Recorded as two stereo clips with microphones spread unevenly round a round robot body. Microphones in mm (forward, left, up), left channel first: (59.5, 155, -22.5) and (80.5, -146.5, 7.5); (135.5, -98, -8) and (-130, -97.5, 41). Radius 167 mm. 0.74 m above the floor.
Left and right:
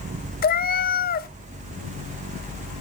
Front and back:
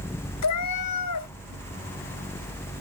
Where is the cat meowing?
35° left, 0.6 m.